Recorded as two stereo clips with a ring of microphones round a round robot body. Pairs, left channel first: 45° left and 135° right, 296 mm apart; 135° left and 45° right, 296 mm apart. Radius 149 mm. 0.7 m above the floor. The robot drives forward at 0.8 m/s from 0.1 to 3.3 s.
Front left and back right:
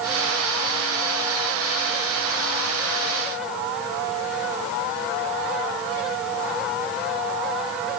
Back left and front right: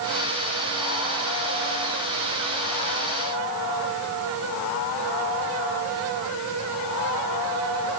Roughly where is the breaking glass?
No breaking glass in this recording.